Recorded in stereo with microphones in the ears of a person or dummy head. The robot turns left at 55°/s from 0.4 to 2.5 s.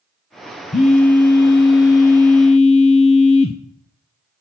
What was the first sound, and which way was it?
A phone buzzing, 140° left.